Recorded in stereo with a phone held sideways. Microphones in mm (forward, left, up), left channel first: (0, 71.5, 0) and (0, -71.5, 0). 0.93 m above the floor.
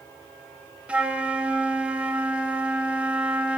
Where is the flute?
10° right (ahead or behind), 0.6 m.